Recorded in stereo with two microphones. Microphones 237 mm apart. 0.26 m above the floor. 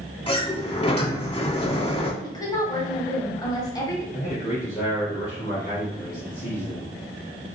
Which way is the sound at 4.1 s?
30° left (ahead or behind).